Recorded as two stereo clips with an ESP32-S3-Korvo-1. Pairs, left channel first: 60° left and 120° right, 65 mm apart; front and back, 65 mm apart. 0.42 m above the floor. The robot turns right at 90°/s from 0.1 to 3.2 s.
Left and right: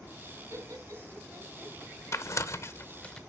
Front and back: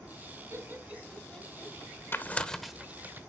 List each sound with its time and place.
0.5 s laughter: 150° right, 2.5 m; by 1.8 s 35° right, 2.5 m
2.1 s tearing paper: 40° left, 0.9 m; by 3.2 s 140° left, 0.9 m